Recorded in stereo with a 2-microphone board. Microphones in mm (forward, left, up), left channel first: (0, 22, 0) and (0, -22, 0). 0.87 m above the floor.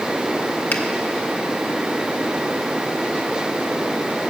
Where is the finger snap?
50° left (ahead or behind), 1.5 m.